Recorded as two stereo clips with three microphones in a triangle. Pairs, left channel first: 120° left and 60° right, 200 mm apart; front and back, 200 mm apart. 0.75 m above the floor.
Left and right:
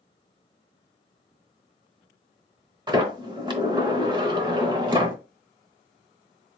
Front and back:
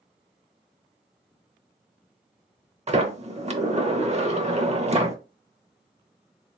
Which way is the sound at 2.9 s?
125° right.